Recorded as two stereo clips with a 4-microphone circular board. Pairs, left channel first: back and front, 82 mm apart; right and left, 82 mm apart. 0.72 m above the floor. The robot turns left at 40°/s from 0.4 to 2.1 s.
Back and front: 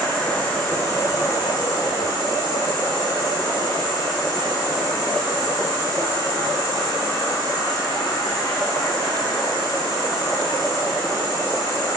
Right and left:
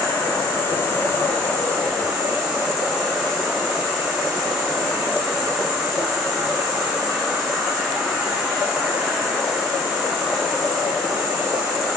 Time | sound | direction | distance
0.0 | an insect | 120° right | 2 m